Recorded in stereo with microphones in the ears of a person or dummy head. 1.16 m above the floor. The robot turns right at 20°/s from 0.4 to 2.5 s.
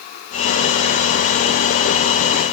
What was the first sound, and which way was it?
Only background noise.